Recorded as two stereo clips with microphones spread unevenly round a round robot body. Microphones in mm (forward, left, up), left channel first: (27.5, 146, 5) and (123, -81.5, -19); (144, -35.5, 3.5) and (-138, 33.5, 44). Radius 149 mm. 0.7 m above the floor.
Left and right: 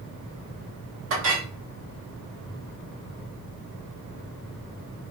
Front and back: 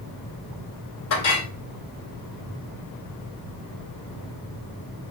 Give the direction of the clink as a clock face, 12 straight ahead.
1 o'clock.